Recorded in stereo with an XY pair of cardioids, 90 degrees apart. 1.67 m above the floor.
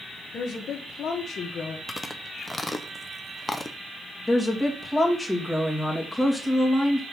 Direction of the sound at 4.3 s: Straight ahead.